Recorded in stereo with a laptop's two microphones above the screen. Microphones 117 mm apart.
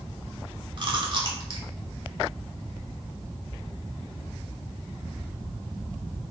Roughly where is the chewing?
Right.